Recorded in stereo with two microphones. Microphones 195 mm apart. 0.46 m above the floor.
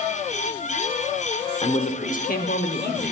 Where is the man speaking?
30° left (ahead or behind), 0.9 m; by 3.1 s 60° left (ahead or behind), 1.4 m.